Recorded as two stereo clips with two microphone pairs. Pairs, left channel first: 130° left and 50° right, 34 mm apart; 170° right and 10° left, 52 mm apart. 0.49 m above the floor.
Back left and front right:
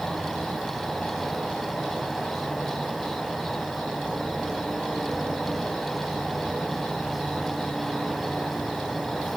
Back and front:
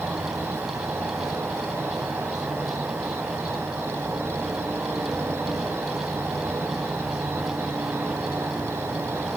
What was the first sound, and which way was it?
An insect, 40° left.